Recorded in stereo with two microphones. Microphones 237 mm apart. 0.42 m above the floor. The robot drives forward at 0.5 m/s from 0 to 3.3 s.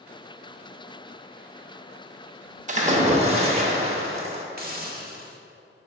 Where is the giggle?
I don't hear a giggle.